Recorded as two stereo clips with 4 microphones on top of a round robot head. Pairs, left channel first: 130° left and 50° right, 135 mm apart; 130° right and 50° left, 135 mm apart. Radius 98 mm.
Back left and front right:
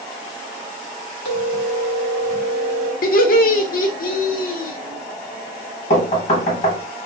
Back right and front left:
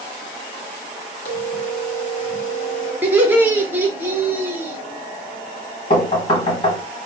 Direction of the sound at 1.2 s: Straight behind.